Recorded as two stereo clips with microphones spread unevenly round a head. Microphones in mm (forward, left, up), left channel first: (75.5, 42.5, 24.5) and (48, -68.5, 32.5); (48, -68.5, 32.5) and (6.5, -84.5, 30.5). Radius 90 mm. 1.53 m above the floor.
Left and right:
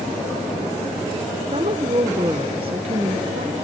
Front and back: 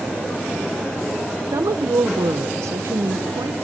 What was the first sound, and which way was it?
A woman speaking, 160° right.